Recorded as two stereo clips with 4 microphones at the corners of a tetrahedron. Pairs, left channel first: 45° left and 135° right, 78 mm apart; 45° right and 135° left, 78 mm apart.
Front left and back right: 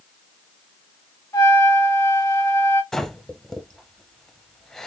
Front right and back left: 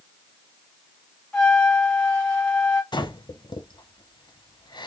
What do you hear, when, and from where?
1.3 s a trumpet: 30° left, 1.4 m
2.9 s breathing: 40° right, 0.5 m